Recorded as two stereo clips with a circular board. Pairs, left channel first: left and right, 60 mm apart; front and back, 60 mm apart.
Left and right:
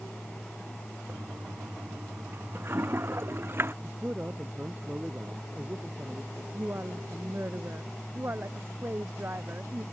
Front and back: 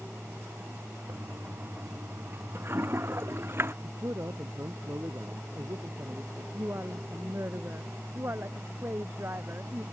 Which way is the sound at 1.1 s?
135° right.